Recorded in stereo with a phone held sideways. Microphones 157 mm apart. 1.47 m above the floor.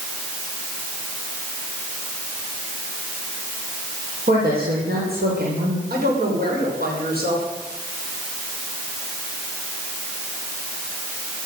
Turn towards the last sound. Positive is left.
turn(degrees=-75)  # may be behind; listen again after turning